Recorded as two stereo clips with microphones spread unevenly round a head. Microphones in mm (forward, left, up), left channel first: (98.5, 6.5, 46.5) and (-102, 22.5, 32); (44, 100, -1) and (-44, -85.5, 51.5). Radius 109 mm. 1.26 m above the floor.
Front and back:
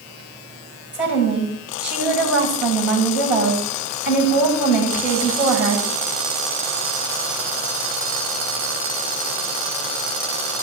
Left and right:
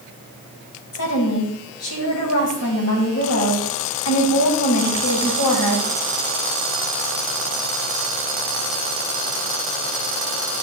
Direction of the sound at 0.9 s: 90° left.